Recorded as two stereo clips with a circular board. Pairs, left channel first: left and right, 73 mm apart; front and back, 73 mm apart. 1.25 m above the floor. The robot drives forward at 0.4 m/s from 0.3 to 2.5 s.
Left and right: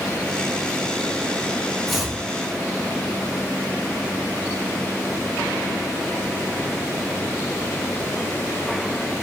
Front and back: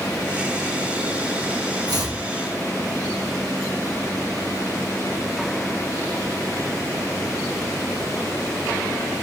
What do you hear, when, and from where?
1.9 s chopping: 175° right, 1.1 m